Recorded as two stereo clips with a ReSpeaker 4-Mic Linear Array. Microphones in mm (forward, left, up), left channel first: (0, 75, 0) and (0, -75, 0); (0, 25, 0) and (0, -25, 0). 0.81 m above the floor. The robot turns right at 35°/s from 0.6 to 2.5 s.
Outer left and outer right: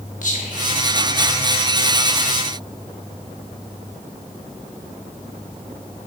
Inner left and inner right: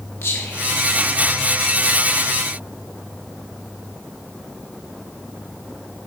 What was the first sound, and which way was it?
Whispering, 55° left (ahead or behind).